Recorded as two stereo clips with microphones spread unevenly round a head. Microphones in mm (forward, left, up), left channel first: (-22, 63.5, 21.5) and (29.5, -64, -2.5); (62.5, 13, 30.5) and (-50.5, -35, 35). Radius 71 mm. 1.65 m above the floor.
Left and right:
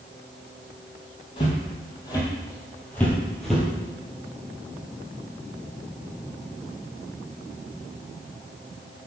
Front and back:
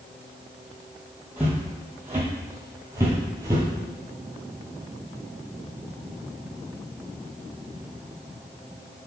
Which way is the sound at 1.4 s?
130° left.